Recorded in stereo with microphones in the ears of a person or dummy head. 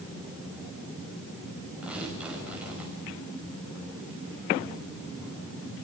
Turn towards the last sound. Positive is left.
turn(degrees=-5)  # may be behind; listen again after turning